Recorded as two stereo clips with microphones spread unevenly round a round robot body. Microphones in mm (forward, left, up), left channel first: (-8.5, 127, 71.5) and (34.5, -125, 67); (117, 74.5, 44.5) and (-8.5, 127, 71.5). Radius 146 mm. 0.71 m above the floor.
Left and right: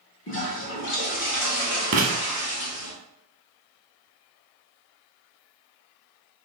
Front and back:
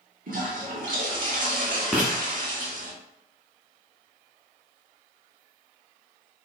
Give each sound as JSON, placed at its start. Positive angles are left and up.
{"t": 0.3, "sound": "a toilet flushing", "azimuth_deg": 145, "distance_m": 1.7}
{"t": 1.9, "sound": "writing", "azimuth_deg": -125, "distance_m": 0.8}